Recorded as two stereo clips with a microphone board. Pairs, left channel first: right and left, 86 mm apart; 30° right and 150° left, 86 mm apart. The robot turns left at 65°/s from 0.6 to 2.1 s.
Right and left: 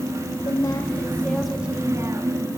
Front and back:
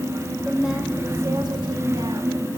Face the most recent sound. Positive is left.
turn(degrees=140)